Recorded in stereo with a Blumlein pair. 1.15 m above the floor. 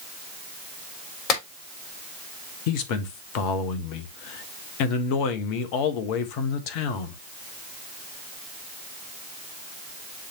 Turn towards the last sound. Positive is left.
turn(degrees=45)